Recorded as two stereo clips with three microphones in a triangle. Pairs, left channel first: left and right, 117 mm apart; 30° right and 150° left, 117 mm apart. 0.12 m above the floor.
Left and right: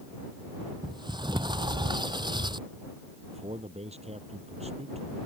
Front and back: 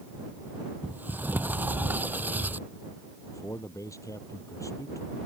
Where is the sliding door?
135° right.